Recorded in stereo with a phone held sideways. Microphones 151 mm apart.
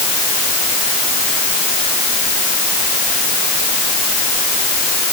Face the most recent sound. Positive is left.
No sound to turn to.